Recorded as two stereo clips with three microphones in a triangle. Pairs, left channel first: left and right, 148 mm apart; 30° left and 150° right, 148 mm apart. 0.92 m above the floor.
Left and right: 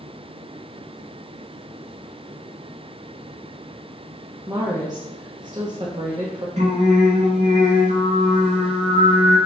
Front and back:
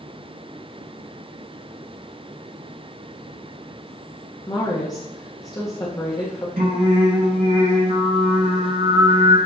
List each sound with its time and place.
4.5 s a woman speaking: 30° right, 1.1 m
6.6 s singing: 130° right, 1.8 m